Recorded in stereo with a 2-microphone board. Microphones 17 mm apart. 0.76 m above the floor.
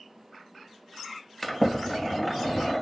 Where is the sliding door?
10° left (ahead or behind), 0.6 m.